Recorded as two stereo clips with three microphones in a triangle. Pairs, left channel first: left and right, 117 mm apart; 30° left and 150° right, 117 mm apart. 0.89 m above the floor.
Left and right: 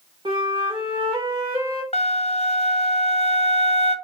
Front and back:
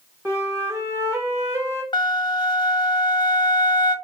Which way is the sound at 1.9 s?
75° left.